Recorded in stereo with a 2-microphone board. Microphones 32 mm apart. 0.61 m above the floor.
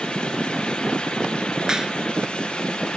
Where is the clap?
20° right (ahead or behind).